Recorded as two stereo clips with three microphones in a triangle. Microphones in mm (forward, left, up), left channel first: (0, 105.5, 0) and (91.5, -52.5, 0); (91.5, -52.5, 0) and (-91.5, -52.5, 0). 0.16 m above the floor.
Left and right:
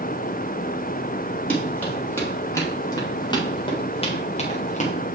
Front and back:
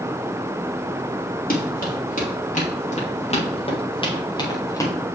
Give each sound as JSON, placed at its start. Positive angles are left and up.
{"t": 1.5, "sound": "running footsteps", "azimuth_deg": 35, "distance_m": 4.5}